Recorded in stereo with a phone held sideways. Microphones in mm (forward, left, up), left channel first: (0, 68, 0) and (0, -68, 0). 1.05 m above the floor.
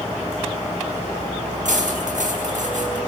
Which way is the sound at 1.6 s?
85° right.